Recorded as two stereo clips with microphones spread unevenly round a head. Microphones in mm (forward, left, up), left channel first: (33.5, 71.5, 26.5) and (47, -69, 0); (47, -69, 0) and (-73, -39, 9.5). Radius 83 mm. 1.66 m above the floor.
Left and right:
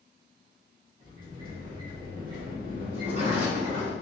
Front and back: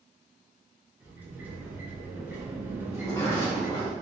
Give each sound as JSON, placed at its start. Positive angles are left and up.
{"t": 1.0, "sound": "a sliding door", "azimuth_deg": -135, "distance_m": 1.1}
{"t": 2.9, "sound": "a sliding door", "azimuth_deg": -70, "distance_m": 1.7}